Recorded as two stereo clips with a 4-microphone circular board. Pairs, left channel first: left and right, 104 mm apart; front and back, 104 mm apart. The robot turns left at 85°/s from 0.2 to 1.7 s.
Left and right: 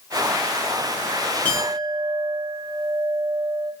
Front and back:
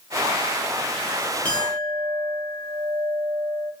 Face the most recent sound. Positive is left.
turn(degrees=30)